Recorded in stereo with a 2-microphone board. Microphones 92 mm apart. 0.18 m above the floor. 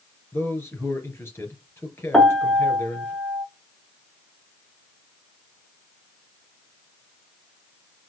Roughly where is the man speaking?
Left.